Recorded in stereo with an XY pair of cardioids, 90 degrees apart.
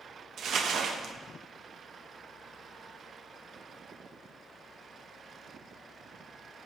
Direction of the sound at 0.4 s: 70° right.